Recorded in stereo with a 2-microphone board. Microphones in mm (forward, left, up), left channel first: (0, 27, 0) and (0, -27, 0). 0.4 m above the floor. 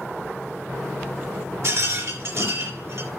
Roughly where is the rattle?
Right.